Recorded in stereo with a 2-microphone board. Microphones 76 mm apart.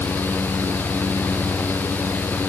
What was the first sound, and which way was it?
Only background noise.